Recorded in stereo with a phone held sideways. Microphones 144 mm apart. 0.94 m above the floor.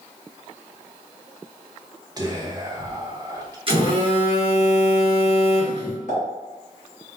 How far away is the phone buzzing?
About 1.0 m.